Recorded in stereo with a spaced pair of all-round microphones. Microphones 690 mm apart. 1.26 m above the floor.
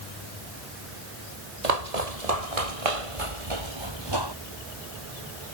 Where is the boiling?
I don't hear boiling.